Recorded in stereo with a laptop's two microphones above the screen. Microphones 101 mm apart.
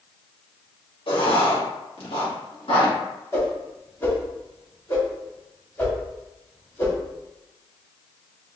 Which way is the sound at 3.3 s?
25° left (ahead or behind).